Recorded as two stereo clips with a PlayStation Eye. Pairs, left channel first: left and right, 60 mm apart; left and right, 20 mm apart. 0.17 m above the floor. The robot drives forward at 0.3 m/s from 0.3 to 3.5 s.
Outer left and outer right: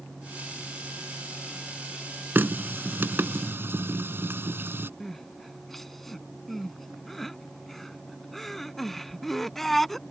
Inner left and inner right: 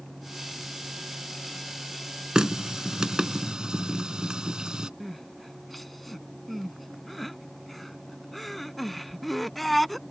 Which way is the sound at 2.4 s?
35° right (ahead or behind).